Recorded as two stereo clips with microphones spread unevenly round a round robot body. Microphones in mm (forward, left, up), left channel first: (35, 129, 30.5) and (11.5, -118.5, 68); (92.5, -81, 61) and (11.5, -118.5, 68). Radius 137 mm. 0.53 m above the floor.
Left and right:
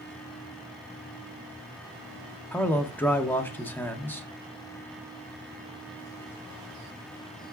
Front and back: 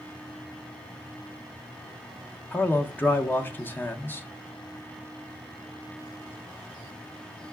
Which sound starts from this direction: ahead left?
A man speaking, at 2.5 s.